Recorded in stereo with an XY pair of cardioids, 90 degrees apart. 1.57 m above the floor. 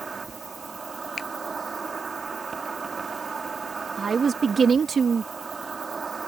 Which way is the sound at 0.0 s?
30° right.